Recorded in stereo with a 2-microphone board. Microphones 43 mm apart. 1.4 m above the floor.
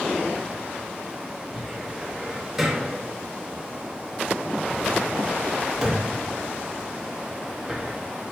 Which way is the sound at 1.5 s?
10° right (ahead or behind).